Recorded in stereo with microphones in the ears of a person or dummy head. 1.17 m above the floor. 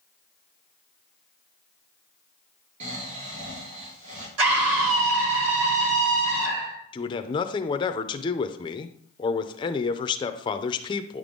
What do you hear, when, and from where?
2.8 s snoring: 40° right (ahead or behind), 3 m
4.4 s a scream: 85° right, 3 m
6.9 s a man speaking: 25° left (ahead or behind), 0.6 m